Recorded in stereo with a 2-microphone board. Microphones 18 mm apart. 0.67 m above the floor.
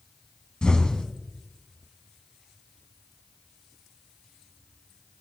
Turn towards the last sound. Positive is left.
turn(degrees=50)  # may be behind; listen again after turning